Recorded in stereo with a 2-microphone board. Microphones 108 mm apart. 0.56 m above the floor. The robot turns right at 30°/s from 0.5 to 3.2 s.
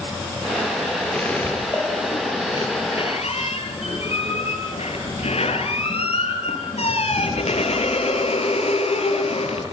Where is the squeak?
10° left, 7 m; by 9.6 s 70° left, 7 m.